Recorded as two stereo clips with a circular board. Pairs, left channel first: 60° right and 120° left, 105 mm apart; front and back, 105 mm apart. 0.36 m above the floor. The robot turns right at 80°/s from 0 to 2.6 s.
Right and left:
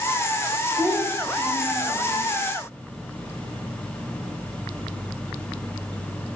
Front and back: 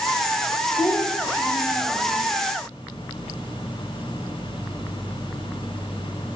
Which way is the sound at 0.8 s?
45° left.